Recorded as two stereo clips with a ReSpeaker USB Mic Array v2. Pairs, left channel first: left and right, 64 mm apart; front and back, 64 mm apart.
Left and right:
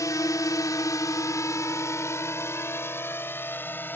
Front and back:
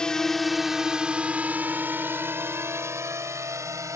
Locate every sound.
0.0 s a drone: 75° left; by 4.0 s 150° left